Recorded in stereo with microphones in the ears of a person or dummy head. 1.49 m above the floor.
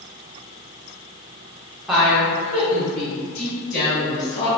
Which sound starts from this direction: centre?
A woman speaking, at 1.9 s.